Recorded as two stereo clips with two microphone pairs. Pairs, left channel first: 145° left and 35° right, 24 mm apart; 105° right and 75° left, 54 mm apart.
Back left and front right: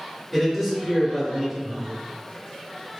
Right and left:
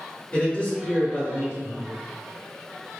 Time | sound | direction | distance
0.3 | a man speaking | 105° right | 0.8 m